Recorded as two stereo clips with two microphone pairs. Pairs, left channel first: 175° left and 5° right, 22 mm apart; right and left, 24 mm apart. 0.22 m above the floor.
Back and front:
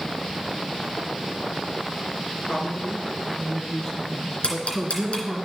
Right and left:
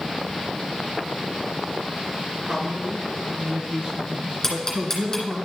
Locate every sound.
2.5 s a man speaking: 140° left, 2.5 m; by 5.4 s 75° left, 2 m
4.4 s ticking: 165° right, 2.5 m